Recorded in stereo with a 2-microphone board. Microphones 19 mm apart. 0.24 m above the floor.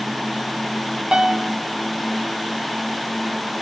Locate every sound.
1.1 s a piano: 55° right (ahead or behind), 0.7 m